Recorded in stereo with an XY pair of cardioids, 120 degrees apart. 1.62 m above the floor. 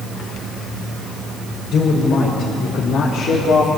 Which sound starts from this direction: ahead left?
A man speaking, at 1.7 s.